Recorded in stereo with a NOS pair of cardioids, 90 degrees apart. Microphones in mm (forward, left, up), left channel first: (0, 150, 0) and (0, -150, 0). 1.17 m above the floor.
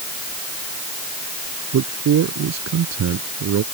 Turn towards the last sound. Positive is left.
turn(degrees=-60)